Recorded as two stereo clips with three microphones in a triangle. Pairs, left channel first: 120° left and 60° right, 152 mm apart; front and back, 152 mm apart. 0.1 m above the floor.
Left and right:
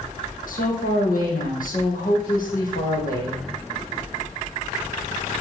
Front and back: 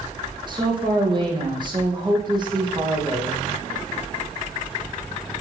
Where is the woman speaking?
125° left, 4.5 m.